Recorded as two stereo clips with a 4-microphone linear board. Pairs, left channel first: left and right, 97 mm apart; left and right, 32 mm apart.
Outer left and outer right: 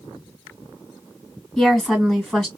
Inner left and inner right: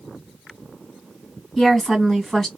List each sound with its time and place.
1.6 s a woman speaking: centre (ahead or behind), 1.8 m